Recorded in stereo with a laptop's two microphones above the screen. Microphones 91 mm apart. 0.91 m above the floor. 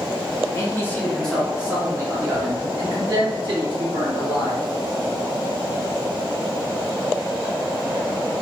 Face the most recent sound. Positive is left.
turn(degrees=-65)  # may be behind; listen again after turning